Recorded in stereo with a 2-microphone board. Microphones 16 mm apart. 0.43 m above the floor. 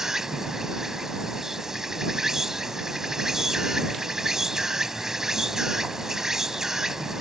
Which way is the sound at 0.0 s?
25° right (ahead or behind).